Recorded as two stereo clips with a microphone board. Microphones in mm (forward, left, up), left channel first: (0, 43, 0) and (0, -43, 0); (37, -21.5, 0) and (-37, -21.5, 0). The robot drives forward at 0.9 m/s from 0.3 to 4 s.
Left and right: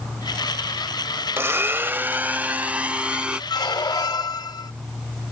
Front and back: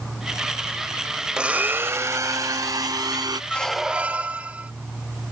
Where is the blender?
110° right; by 3.4 s 165° right.